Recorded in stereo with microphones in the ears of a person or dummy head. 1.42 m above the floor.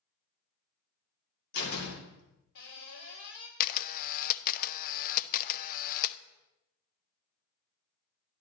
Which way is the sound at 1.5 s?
65° left (ahead or behind).